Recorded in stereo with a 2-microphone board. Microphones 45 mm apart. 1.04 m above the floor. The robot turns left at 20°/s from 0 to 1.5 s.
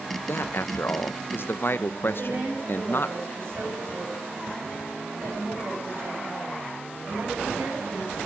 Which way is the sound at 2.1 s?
70° right (ahead or behind).